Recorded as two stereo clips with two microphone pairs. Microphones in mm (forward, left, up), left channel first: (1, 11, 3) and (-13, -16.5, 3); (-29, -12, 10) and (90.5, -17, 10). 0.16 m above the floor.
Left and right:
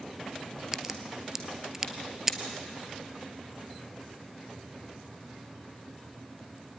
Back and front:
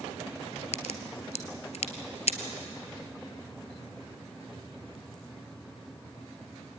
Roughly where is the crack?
Behind.